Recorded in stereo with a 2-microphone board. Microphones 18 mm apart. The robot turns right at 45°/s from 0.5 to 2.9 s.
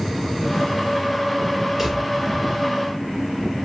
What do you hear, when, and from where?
1.8 s a drawer: 20° right (ahead or behind), 1.5 m; by 2.0 s 10° right (ahead or behind), 1.5 m